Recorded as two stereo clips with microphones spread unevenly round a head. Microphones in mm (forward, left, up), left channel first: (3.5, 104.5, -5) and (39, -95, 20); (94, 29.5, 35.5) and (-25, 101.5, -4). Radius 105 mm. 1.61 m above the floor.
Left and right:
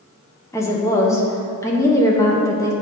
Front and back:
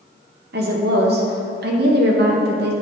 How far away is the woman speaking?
About 1.0 m.